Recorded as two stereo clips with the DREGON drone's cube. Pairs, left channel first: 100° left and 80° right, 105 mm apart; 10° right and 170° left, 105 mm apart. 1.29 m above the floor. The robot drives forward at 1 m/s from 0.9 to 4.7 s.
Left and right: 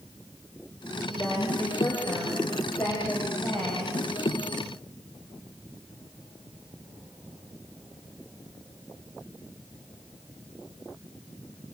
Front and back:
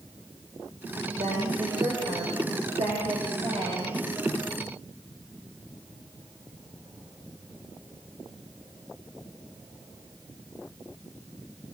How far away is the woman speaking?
About 5.5 m.